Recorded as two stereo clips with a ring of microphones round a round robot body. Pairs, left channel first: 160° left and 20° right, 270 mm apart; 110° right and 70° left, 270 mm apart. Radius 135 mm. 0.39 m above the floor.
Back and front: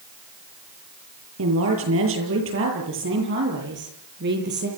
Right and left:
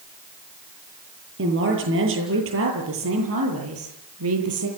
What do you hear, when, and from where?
1.4 s a woman speaking: 20° left, 9 m; by 4.7 s 30° left, 10.5 m